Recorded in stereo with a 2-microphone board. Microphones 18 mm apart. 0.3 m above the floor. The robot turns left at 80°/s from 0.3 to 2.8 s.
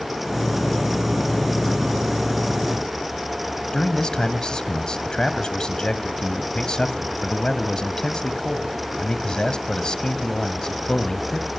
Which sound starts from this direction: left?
A man speaking, at 3.7 s.